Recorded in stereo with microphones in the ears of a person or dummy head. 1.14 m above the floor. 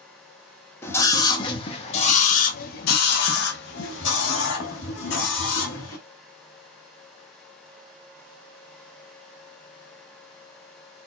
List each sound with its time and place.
0.8 s a scream: 15° left (ahead or behind), 1.4 m; by 6.0 s 85° left, 2.5 m